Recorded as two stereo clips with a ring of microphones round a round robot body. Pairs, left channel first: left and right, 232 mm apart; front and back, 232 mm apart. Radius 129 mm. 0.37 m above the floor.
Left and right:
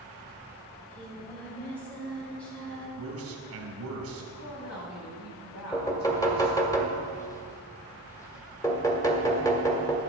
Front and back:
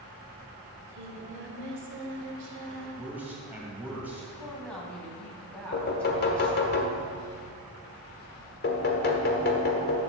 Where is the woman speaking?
85° left, 3.5 m.